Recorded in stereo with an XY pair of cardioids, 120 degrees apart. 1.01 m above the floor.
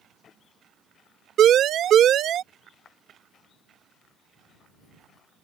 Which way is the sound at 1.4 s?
55° right.